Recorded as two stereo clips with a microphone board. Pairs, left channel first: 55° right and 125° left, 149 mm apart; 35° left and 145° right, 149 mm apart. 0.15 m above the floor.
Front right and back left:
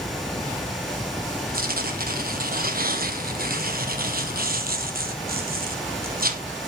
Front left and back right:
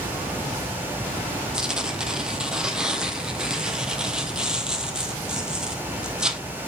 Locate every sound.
1.5 s tearing paper: 130° left, 1.4 m